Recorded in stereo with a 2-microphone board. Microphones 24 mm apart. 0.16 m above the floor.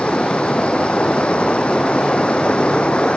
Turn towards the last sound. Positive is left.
turn(degrees=55)  # may be behind; listen again after turning